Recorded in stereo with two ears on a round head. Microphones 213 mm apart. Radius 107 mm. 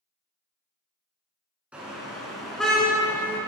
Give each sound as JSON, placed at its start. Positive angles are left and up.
{"t": 1.7, "sound": "a car horn", "side_deg": -5, "distance_m": 5.0}